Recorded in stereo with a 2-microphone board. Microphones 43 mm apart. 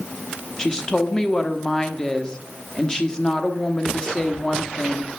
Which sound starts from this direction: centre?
A woman speaking, at 0.6 s.